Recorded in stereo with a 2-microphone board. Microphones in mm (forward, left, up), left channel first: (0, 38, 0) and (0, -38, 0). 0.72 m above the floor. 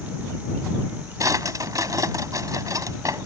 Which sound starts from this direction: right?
A drawer, at 1.2 s.